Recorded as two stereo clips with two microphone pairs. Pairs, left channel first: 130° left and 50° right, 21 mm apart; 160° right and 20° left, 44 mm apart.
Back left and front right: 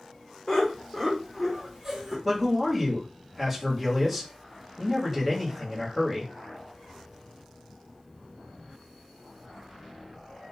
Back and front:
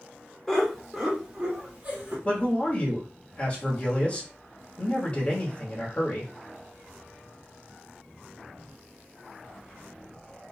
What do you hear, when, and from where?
0.5 s laughter: 145° left, 1.1 m; by 2.1 s 30° left, 1.2 m
2.2 s a man speaking: 130° right, 1.2 m